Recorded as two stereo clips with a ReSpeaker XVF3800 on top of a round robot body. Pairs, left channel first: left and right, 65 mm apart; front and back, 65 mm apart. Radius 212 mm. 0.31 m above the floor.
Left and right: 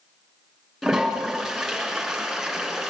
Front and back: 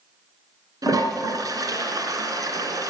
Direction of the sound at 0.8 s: 175° left.